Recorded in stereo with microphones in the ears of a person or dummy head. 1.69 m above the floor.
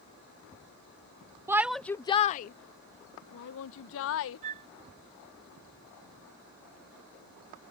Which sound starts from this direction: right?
A flute, at 4.4 s.